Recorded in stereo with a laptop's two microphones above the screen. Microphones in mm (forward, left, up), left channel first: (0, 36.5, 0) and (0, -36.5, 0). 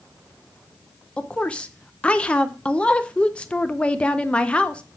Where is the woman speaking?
15° left (ahead or behind), 0.5 m.